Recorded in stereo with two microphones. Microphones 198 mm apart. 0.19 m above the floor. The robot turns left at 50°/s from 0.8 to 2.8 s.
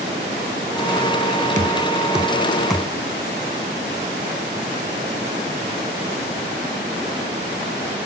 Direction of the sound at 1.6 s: 40° right (ahead or behind).